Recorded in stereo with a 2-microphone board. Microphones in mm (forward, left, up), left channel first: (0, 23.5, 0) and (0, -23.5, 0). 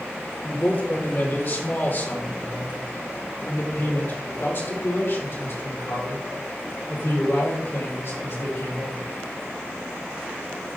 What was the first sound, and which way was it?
A man speaking, 40° left (ahead or behind).